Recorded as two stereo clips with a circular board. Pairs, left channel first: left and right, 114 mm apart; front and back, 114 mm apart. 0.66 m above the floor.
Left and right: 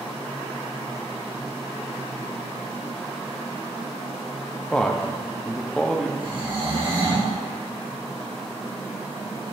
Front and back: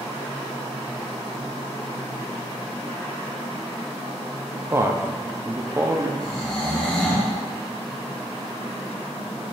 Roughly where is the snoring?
Right.